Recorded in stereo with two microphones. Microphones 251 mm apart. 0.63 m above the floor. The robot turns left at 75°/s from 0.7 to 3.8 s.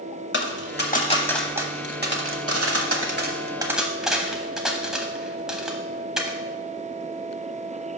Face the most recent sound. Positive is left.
turn(degrees=-5)  # may be behind; listen again after turning